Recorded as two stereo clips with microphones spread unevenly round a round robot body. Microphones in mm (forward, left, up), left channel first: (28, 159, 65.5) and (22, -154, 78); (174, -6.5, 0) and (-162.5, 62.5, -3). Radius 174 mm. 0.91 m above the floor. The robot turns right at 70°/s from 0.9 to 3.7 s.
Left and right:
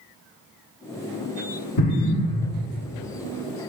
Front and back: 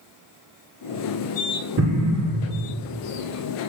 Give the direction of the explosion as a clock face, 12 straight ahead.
8 o'clock.